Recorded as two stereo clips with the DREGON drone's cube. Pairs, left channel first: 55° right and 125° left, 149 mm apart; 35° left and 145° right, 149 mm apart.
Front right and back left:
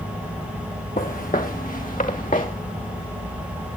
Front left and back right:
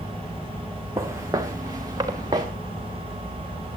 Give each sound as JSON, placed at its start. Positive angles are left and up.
{"t": 1.0, "sound": "footsteps", "azimuth_deg": -75, "distance_m": 2.5}